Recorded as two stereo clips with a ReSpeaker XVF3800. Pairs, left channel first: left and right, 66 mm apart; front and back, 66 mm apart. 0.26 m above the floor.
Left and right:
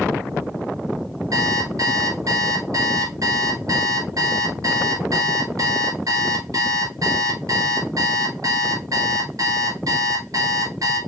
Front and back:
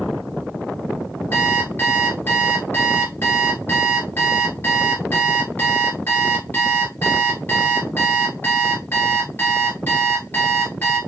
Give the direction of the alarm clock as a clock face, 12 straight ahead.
2 o'clock.